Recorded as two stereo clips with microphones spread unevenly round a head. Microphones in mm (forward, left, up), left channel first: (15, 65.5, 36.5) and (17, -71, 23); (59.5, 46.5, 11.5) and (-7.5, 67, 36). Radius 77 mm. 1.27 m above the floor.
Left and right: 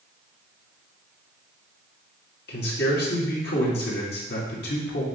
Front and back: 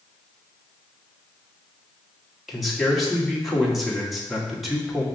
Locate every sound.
2.5 s a man speaking: 75° left, 1.7 m